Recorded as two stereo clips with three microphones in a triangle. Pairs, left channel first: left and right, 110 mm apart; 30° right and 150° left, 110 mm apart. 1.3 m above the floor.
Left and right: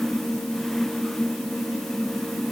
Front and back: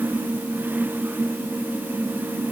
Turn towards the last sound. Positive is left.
No sound to turn to.